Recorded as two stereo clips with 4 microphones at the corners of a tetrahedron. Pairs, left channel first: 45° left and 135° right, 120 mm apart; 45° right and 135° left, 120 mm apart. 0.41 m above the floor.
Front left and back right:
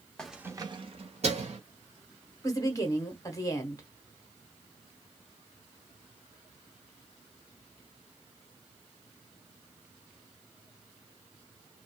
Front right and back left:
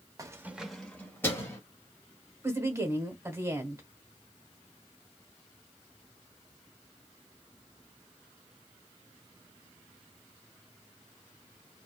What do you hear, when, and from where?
0.2 s keys jangling: 125° left, 0.6 m; by 1.6 s 110° right, 1.3 m
2.4 s a woman speaking: 85° left, 1.0 m